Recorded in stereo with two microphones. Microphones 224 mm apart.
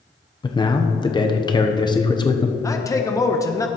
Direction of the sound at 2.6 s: 15° left (ahead or behind).